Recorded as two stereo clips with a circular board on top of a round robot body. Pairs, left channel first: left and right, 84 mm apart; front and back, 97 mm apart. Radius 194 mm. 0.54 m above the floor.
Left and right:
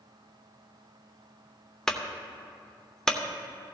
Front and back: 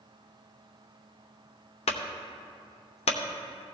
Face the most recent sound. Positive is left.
turn(degrees=5)